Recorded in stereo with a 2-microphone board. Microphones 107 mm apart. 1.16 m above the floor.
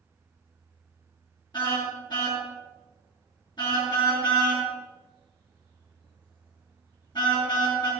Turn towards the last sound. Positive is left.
turn(degrees=45)  # may be behind; listen again after turning